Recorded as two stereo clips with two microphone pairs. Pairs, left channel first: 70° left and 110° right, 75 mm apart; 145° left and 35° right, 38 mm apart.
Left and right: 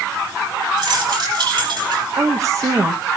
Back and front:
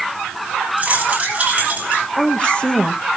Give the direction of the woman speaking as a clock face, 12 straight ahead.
5 o'clock.